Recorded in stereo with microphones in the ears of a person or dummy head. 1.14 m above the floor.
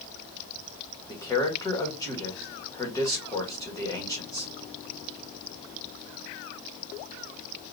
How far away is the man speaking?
About 1.6 m.